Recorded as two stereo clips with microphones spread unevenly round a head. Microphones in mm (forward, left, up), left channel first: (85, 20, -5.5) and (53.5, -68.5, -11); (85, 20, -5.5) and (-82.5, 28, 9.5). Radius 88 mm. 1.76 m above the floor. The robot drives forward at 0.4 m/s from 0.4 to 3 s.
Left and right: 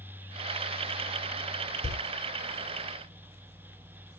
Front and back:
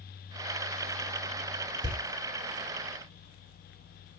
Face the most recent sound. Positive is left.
turn(degrees=-125)